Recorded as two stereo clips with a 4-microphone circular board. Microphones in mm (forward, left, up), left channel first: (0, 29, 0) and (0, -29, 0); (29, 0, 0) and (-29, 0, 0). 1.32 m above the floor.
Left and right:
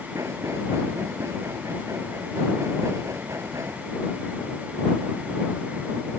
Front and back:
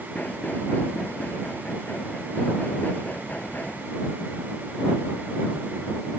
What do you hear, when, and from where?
0.1 s knocking: 60° right